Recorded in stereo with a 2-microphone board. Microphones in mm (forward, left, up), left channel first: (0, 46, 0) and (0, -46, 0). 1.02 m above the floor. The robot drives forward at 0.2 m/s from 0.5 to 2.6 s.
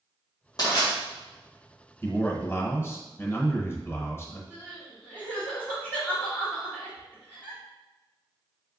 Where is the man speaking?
25° left (ahead or behind), 0.8 m.